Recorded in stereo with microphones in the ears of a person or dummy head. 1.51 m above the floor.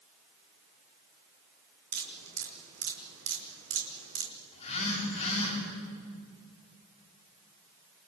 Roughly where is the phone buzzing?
Left.